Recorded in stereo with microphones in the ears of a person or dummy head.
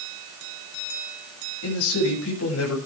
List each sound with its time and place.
1.6 s a man speaking: 75° left (ahead or behind), 8 m